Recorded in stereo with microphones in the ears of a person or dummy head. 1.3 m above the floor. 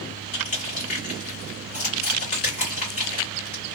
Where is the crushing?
40° left (ahead or behind), 1.8 m.